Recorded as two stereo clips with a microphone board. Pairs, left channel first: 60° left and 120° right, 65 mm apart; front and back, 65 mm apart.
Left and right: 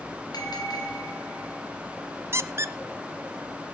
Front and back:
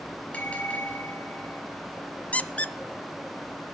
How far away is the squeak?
About 0.6 m.